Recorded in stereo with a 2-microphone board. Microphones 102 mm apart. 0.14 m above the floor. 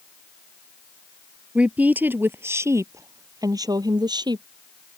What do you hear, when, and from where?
1.6 s a woman speaking: 10° right (ahead or behind); by 4.5 s 45° right (ahead or behind)